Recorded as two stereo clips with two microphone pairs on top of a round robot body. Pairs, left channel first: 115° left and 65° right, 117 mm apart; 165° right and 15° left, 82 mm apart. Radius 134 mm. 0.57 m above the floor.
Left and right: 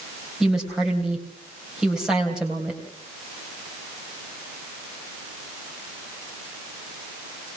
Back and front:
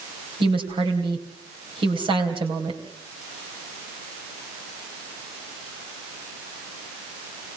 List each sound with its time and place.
0.4 s a woman speaking: 25° left, 3 m